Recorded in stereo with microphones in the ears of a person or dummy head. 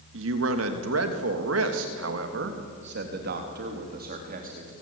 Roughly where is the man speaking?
Right.